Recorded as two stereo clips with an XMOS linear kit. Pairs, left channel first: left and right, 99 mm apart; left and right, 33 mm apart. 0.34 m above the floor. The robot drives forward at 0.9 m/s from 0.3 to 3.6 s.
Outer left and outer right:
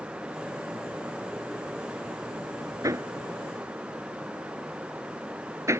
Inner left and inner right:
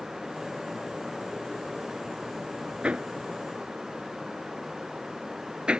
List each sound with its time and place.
2.8 s hammering: 35° right (ahead or behind); by 5.8 s 30° right (ahead or behind)